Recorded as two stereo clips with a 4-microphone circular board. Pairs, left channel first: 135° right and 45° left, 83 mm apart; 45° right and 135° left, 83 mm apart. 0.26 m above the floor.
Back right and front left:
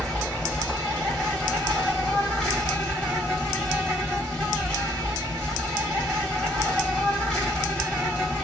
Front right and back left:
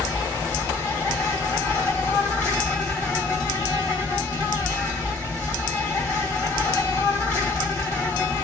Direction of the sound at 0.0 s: 90° right.